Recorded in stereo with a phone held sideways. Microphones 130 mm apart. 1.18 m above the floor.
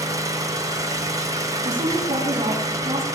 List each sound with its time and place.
0.0 s an engine running: 25° right (ahead or behind), 3 m
1.6 s a woman speaking: 45° right (ahead or behind), 8 m